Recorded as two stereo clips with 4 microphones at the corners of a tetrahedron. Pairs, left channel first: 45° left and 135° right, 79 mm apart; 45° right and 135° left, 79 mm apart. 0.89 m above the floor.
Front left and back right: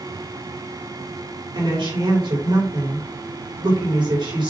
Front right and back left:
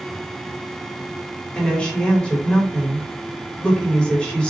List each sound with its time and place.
1.6 s a woman speaking: 120° right, 3.5 m